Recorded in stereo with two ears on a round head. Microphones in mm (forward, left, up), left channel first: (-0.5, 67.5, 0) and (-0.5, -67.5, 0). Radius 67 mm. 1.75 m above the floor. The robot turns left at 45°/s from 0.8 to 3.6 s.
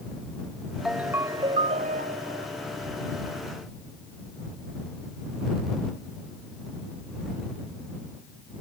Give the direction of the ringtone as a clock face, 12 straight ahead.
12 o'clock.